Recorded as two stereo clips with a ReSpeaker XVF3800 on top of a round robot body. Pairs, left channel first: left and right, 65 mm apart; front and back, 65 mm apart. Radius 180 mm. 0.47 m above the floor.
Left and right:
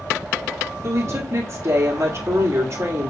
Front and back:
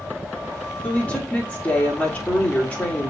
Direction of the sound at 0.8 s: 60° right.